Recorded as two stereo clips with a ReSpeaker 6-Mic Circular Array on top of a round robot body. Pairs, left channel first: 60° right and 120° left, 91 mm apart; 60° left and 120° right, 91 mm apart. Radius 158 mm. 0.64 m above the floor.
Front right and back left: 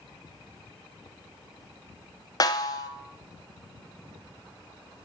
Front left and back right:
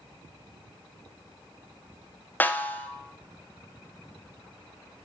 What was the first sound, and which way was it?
A snare drum, 10° right.